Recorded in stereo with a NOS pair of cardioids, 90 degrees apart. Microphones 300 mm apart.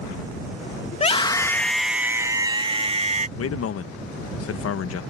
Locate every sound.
0.9 s a scream: 25° left; by 3.3 s 25° right
3.4 s a man speaking: 50° left